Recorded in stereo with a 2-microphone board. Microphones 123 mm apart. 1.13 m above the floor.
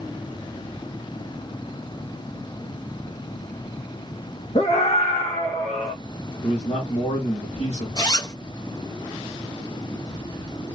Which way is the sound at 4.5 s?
55° left (ahead or behind).